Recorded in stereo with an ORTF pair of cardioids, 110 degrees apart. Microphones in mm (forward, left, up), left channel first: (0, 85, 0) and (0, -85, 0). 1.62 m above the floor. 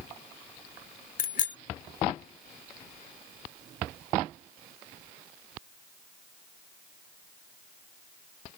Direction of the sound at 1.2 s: 55° left.